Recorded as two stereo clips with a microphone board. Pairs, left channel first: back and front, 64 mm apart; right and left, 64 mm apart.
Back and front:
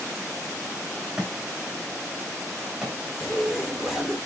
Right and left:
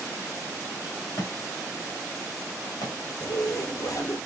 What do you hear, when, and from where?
1.2 s a thud: 75° right, 4.5 m
3.2 s a zipper: 80° right, 4 m